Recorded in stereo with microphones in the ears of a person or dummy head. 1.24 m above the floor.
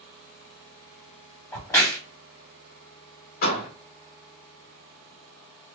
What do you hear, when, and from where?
1.5 s a crack: 15° left (ahead or behind), 1.8 m
3.4 s a door slam: 50° left (ahead or behind), 1.5 m